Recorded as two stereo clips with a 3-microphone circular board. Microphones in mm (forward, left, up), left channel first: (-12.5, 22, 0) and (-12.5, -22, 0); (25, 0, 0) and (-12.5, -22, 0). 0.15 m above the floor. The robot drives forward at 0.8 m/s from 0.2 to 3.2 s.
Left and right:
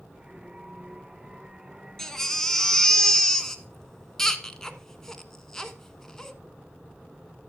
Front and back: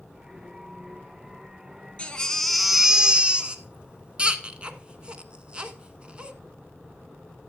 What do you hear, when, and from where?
2.0 s a baby crying: 20° left, 1.0 m; by 6.3 s 165° left, 1.1 m